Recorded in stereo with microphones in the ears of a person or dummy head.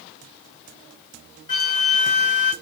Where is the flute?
35° left (ahead or behind), 1.3 m.